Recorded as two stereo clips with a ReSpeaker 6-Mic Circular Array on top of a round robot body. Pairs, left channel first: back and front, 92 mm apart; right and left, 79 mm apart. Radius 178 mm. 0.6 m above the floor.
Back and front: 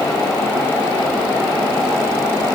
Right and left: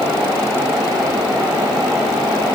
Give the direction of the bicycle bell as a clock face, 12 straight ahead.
I don't hear a bicycle bell.